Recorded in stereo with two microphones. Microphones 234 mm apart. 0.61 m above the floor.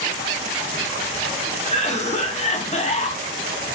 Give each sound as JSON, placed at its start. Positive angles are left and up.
{"t": 1.6, "sound": "a cough", "side_deg": 30, "distance_m": 0.6}